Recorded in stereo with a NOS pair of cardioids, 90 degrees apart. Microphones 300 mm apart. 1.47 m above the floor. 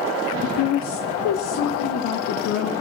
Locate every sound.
0.4 s a woman speaking: 45° left, 0.7 m; by 2.7 s 80° left, 1.9 m